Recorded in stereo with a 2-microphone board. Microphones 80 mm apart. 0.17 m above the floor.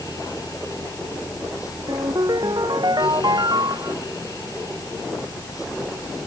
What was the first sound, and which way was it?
A ringtone, 60° right (ahead or behind).